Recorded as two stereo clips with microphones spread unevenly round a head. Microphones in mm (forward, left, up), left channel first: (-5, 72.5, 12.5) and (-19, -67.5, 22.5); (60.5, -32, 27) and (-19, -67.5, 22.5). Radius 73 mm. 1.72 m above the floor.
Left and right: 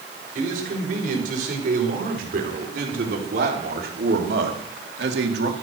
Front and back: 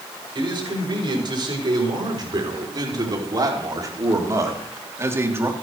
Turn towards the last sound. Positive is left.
turn(degrees=-95)